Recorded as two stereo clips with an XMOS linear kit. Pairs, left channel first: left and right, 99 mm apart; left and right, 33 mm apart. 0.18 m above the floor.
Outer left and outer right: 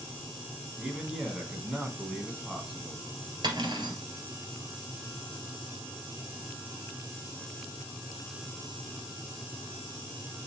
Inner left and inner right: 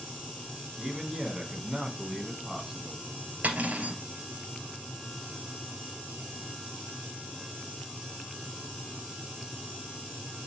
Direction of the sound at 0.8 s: 5° right (ahead or behind).